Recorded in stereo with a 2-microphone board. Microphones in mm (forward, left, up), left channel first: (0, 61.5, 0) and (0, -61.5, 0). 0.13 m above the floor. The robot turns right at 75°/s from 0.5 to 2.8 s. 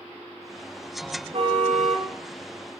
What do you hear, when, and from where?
1.3 s a car horn: 130° right, 6.5 m; by 2.1 s 70° right, 6.5 m